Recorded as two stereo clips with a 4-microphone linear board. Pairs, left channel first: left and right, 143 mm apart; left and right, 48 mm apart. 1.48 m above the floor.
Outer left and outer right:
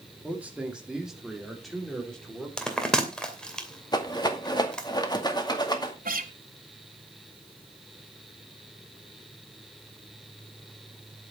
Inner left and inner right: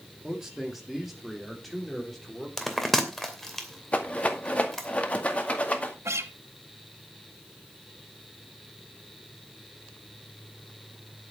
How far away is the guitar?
About 1.4 m.